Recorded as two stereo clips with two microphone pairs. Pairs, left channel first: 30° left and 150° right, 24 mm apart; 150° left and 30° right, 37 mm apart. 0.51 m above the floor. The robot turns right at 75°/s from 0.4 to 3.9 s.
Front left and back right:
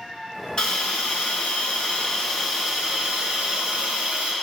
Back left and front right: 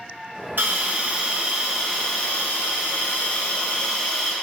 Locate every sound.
0.6 s a hiss: 20° right, 2.5 m; by 4.3 s 130° right, 2.5 m